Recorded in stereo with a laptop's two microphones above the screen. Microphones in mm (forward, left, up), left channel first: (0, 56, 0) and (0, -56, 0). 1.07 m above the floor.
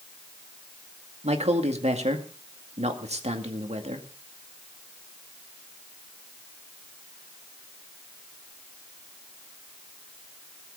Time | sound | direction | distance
1.2 | a man speaking | 75° right (ahead or behind) | 2 m